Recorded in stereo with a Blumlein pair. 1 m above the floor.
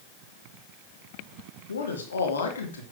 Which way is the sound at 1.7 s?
70° left.